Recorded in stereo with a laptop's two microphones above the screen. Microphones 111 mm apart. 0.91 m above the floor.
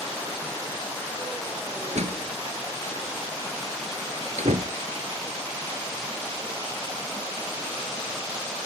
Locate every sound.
1.9 s a door slam: 85° right